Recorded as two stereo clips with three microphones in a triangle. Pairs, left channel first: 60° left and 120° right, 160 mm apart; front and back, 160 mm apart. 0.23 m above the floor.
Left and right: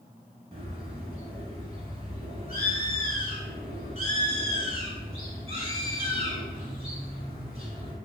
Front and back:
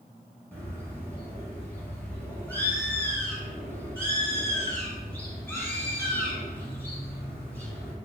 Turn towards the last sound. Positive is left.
turn(degrees=-75)